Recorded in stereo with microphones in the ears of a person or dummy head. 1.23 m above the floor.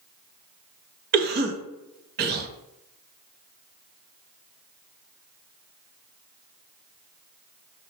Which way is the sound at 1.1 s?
40° right (ahead or behind).